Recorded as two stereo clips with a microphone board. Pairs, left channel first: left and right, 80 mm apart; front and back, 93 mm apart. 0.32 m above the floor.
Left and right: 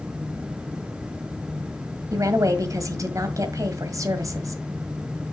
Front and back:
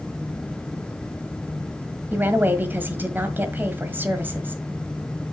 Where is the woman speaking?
115° right, 1.6 m.